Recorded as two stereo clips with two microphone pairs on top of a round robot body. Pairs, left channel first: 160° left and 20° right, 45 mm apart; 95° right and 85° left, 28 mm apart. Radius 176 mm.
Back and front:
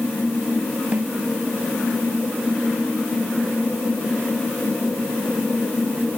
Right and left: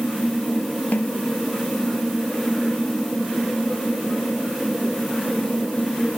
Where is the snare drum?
85° right.